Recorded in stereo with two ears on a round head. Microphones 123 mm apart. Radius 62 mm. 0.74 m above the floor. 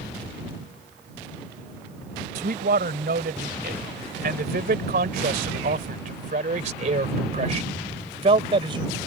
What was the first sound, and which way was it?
A man speaking, 70° right (ahead or behind).